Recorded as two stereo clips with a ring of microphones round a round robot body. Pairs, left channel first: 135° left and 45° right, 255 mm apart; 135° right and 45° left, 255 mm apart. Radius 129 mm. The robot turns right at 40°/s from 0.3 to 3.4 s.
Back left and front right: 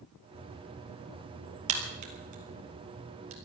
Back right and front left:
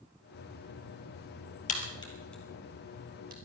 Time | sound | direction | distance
1.7 | a crack | 75° right | 3 m